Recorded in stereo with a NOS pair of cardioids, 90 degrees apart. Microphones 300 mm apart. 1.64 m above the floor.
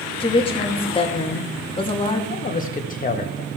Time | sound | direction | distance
0.2 | a woman speaking | 20° left | 2.5 m
2.3 | a man speaking | 30° left | 1.9 m